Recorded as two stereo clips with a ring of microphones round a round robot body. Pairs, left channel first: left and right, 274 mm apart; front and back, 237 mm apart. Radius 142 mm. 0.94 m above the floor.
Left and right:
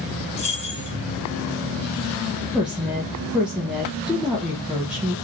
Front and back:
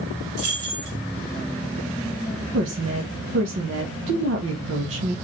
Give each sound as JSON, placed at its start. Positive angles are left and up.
{"t": 0.4, "sound": "keys jangling", "azimuth_deg": 155, "distance_m": 1.7}
{"t": 2.5, "sound": "a woman speaking", "azimuth_deg": -175, "distance_m": 1.2}